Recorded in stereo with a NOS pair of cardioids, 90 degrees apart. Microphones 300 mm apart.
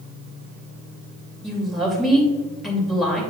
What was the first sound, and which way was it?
A woman speaking, straight ahead.